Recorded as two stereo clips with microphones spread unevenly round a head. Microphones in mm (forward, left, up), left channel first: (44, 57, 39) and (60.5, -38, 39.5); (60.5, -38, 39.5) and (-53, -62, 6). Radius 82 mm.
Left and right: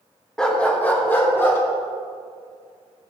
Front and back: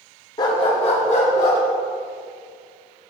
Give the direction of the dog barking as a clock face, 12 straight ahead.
11 o'clock.